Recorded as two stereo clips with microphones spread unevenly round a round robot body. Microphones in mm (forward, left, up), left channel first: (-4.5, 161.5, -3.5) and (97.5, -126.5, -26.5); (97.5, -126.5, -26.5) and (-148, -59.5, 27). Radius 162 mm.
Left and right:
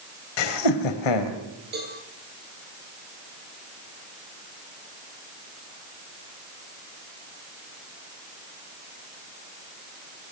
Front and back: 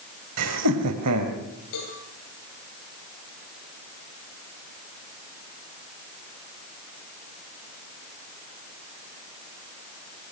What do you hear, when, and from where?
0.4 s laughter: 115° left, 3 m
1.7 s a cowbell: 10° right, 9 m